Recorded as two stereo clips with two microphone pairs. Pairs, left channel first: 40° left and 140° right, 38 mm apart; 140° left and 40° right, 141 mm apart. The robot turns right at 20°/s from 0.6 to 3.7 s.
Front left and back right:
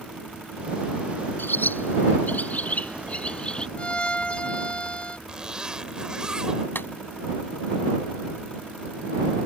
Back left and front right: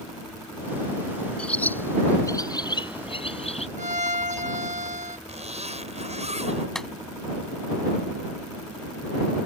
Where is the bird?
60° left; by 3.7 s 105° left.